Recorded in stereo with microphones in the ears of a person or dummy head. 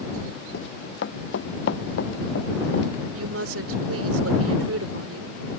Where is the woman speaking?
80° right.